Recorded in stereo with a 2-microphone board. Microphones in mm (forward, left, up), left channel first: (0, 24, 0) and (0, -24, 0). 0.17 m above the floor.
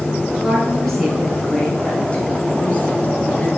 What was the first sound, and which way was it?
A woman speaking, centre (ahead or behind).